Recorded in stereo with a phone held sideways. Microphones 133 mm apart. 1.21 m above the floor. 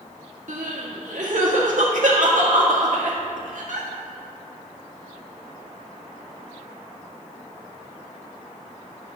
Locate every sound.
0.5 s crying: 75° right (ahead or behind), 1.7 m